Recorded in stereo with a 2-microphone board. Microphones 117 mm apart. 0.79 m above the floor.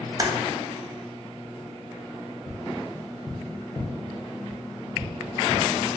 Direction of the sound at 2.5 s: 25° left (ahead or behind).